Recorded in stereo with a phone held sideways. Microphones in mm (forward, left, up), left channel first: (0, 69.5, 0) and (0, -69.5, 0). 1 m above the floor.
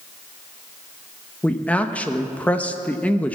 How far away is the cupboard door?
No cupboard door in this recording.